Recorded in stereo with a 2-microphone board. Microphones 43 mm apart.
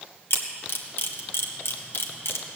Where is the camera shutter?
65° left (ahead or behind), 1.4 m.